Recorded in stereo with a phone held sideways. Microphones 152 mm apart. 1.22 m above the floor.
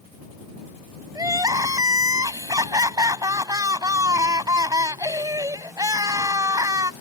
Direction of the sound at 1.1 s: 25° right (ahead or behind).